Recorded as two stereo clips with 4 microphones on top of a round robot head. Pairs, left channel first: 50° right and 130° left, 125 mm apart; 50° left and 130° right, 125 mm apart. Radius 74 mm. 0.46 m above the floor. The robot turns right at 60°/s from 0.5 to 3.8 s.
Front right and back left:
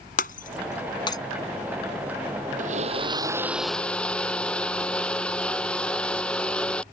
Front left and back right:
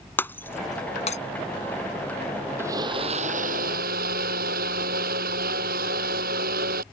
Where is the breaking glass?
25° right; by 1.2 s 15° left.